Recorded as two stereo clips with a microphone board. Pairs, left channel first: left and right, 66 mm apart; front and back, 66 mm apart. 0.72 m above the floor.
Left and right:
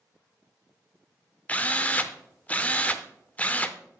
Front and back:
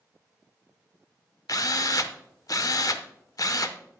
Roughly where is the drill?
Ahead.